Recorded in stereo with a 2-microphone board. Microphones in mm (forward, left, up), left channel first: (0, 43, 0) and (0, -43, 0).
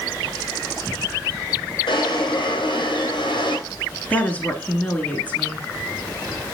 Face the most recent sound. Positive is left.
turn(degrees=15)  # may be behind; listen again after turning